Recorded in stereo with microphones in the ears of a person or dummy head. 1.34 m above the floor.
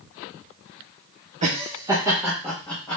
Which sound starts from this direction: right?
Laughter, at 1.4 s.